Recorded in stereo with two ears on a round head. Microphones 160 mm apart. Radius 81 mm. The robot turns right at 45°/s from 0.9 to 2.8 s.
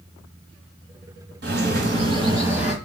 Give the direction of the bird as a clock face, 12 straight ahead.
2 o'clock.